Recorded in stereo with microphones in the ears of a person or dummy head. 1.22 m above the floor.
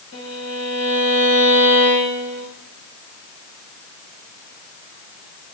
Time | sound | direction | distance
0.1 | a violin | 65° left (ahead or behind) | 4.5 m